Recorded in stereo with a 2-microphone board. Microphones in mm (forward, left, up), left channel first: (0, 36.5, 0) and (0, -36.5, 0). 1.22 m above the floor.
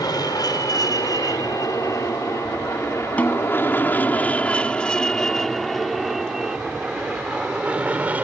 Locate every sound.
0.0 s an aircraft: 65° left (ahead or behind); by 8.2 s 20° right (ahead or behind)
3.2 s a snare drum: 20° left (ahead or behind)